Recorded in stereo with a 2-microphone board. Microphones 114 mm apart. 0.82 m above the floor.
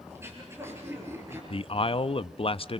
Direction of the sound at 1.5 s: 50° left (ahead or behind).